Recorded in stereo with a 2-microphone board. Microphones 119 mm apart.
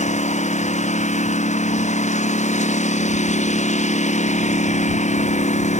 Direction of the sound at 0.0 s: 70° left (ahead or behind).